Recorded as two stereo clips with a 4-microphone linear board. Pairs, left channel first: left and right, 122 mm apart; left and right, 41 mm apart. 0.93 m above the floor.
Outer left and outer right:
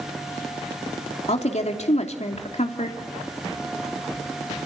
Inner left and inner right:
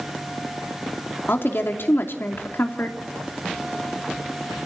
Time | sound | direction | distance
1.3 | a woman speaking | 65° left (ahead or behind) | 2.5 m